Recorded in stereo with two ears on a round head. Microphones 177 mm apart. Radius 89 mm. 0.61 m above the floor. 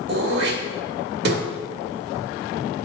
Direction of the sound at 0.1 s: 55° right (ahead or behind).